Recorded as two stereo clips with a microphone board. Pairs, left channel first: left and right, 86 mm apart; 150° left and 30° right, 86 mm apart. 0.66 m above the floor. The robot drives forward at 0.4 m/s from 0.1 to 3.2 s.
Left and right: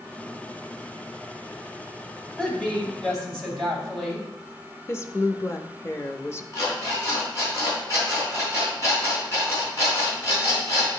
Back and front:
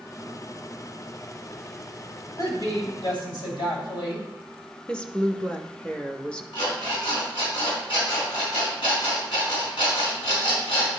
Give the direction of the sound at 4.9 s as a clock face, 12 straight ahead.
9 o'clock.